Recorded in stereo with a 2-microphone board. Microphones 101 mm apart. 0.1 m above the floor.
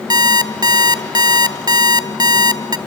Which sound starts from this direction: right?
An alarm clock, at 0.1 s.